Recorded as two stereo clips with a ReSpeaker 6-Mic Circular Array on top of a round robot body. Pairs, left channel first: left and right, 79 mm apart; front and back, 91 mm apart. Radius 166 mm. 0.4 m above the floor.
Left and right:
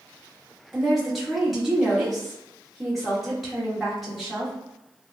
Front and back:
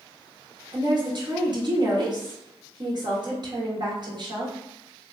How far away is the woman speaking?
About 1.2 m.